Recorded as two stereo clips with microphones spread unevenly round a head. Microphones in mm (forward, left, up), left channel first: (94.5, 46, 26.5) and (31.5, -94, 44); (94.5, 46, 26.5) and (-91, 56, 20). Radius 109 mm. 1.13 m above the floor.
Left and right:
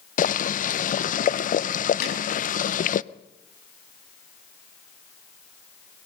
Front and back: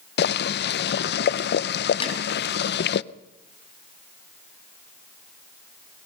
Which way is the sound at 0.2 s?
30° left.